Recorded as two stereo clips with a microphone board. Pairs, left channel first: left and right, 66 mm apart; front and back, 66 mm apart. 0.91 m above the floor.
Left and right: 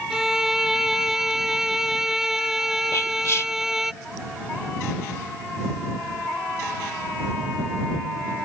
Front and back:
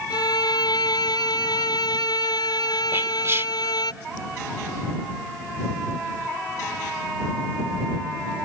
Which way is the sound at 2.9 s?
130° left.